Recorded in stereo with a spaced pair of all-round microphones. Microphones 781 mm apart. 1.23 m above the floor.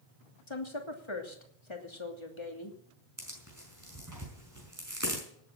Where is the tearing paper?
20° right (ahead or behind), 5.5 m.